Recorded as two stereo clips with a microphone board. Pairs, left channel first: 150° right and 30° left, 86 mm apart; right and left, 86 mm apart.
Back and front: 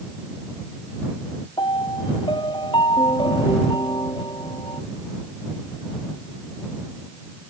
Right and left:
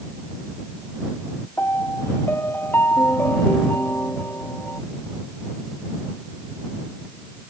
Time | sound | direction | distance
1.6 | a piano | 155° right | ?